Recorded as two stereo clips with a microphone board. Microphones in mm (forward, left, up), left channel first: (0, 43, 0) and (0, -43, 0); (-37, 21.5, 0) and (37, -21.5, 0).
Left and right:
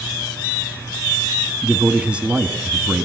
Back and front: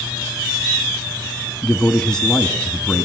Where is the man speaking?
140° right, 1.1 m.